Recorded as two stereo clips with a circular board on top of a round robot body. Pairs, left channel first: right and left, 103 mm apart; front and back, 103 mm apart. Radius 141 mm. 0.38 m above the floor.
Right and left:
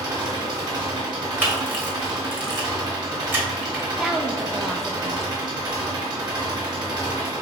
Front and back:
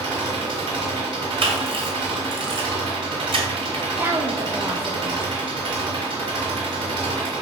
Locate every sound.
0.0 s an engine running: 140° left, 1.9 m
1.4 s a camera shutter: 160° left, 1.5 m
4.0 s a woman speaking: 165° left, 0.8 m